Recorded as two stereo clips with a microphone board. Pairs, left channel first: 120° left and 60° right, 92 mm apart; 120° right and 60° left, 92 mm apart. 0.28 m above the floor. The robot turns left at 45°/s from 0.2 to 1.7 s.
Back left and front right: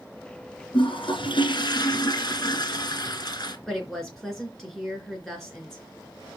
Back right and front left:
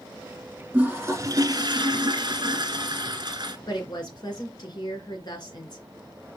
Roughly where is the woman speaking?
Behind right.